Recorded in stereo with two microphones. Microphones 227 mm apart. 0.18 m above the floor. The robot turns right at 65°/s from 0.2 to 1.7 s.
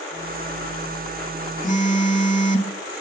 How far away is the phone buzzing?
About 0.5 m.